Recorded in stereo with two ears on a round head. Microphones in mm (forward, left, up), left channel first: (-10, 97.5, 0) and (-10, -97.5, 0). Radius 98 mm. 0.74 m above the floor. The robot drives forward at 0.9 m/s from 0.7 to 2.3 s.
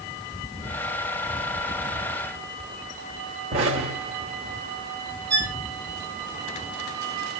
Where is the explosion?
35° right (ahead or behind), 3 m.